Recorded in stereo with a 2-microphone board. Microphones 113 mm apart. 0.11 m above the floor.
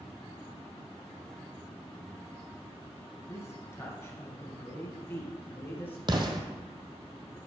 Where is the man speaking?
25° left (ahead or behind), 1.1 m; by 6.0 s 20° left (ahead or behind), 2 m.